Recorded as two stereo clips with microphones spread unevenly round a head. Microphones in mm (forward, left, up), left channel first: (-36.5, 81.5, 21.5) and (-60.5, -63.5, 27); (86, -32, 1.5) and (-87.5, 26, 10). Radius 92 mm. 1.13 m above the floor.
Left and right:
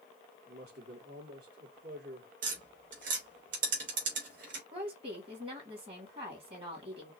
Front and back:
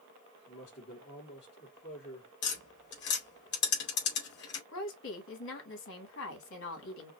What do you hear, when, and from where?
0.5 s a man speaking: 65° right, 3 m
2.4 s tapping: 50° right, 2.5 m
4.7 s a woman speaking: 40° right, 2.5 m